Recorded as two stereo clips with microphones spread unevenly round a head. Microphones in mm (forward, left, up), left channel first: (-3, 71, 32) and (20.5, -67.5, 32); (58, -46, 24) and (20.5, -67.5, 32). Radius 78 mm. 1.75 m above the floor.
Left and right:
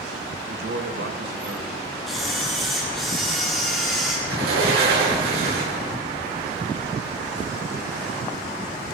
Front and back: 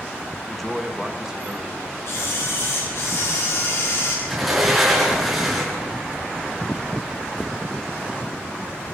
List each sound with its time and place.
0.5 s a man speaking: 55° right, 1.9 m; by 1.9 s 90° right, 3.5 m
2.1 s a camera shutter: 10° left, 7 m
4.3 s a sliding door: 65° right, 8.5 m